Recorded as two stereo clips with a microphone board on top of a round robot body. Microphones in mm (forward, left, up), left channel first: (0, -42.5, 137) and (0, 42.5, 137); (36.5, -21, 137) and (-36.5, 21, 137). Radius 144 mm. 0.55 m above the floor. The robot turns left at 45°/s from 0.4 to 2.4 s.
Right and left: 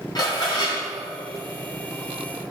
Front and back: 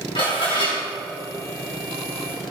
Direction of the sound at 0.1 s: 45° right.